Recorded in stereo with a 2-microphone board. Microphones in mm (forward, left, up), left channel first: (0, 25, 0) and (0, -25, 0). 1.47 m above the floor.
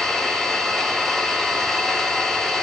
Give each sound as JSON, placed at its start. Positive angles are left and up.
{"t": 0.0, "sound": "an engine running", "side_deg": 10, "distance_m": 1.9}